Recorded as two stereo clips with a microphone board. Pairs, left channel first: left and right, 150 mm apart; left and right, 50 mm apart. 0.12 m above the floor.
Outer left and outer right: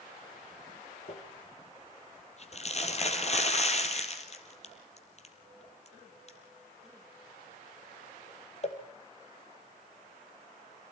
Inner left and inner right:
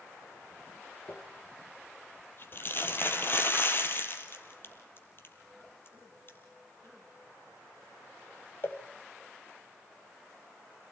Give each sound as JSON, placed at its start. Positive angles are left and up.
{"t": 1.1, "sound": "crumpling", "side_deg": 45, "distance_m": 3.5}